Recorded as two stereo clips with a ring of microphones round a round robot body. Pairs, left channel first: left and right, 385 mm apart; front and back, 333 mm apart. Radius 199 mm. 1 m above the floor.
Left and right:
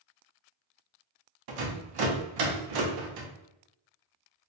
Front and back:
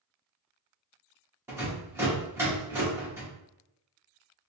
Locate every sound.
1.5 s a rattle: 100° right, 0.8 m